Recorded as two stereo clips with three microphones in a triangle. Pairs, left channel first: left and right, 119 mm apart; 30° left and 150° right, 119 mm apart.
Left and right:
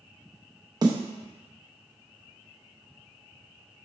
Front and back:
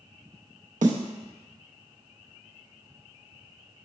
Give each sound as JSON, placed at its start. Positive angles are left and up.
{"t": 0.8, "sound": "a snare drum", "azimuth_deg": -150, "distance_m": 0.6}